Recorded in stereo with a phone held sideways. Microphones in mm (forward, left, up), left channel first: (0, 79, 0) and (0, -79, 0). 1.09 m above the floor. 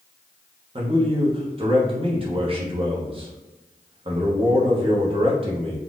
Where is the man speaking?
35° right (ahead or behind), 0.8 m.